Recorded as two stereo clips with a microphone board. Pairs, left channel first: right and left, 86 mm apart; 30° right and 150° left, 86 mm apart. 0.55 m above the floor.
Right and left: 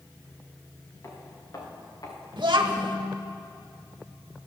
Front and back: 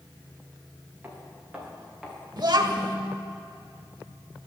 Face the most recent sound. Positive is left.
turn(degrees=115)